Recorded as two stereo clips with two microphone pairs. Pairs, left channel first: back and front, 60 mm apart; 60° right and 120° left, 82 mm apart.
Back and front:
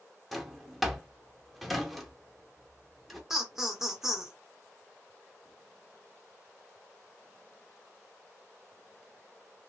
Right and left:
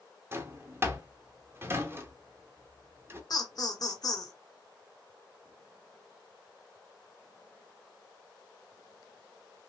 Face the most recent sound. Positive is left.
turn(degrees=-85)